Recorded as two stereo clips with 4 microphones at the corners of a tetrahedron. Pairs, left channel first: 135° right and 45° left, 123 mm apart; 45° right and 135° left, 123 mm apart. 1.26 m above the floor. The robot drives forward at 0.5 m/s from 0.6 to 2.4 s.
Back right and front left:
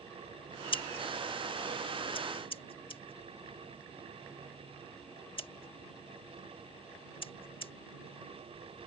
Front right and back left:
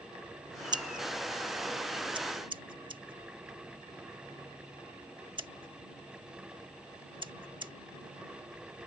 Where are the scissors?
175° right; by 7.7 s straight behind.